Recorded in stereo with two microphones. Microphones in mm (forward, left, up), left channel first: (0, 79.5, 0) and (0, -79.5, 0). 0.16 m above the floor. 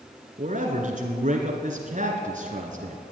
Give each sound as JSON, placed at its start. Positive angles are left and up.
{"t": 0.4, "sound": "a man speaking", "side_deg": -50, "distance_m": 1.6}